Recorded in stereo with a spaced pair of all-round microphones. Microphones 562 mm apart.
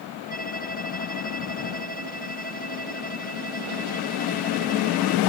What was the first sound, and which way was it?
A violin, 15° left (ahead or behind).